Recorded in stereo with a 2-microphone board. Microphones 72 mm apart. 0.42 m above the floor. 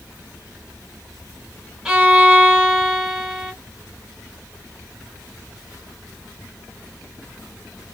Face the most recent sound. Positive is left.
turn(degrees=-10)  # may be behind; listen again after turning